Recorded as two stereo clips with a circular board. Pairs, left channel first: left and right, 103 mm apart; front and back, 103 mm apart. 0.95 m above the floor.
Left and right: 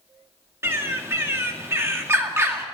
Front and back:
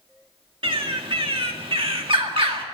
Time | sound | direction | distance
0.6 | a bird | 155° right | 1.8 m